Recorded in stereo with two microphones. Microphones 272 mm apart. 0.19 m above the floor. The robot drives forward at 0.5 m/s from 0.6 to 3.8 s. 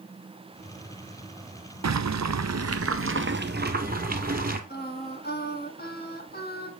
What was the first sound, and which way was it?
Boiling, 75° right (ahead or behind).